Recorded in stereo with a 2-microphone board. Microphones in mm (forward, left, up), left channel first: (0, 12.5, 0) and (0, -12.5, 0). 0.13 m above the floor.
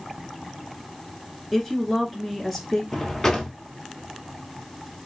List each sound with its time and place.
1.5 s a woman speaking: 10° left (ahead or behind), 1.4 m
2.9 s a drawer: 20° left (ahead or behind), 1.1 m